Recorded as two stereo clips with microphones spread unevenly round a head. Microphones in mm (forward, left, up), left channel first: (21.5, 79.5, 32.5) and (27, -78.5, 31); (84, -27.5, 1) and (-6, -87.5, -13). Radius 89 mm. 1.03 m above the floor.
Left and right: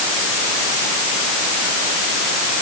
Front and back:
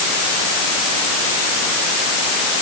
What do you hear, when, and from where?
Only background noise.